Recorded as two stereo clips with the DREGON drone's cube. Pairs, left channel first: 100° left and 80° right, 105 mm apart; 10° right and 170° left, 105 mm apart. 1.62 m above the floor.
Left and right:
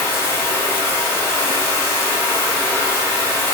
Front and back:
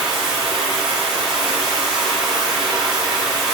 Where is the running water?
90° left, 1.6 m.